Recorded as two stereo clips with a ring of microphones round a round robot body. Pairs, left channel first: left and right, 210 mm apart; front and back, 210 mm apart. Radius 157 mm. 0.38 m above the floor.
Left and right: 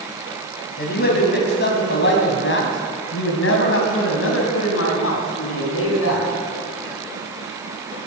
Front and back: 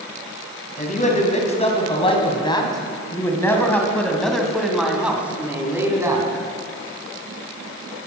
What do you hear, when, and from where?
0.8 s a man speaking: 50° left, 3 m; by 6.3 s 105° left, 3.5 m